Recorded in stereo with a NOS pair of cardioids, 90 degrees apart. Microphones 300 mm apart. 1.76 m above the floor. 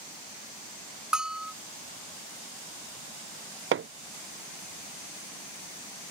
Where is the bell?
5° right.